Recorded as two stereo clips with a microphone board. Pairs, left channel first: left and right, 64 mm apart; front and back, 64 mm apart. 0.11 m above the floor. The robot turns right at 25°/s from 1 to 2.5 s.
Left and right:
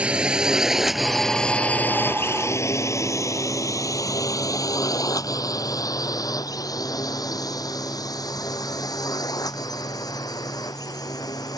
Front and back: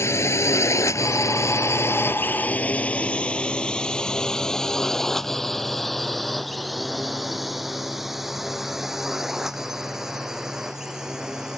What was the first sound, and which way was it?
A drone, 25° right.